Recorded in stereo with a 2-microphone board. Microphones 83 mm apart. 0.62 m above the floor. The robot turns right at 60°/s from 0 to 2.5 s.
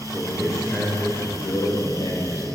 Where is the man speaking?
25° right, 2 m; by 2.5 s 115° left, 2 m.